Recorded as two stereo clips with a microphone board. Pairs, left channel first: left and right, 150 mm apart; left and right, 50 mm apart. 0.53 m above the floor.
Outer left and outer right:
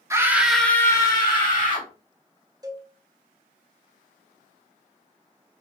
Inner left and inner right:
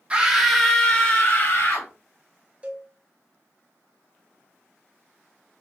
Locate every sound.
0.1 s a scream: 20° right (ahead or behind), 0.6 m; by 1.9 s 40° left (ahead or behind), 1.0 m
2.6 s a cowbell: 25° right (ahead or behind), 0.5 m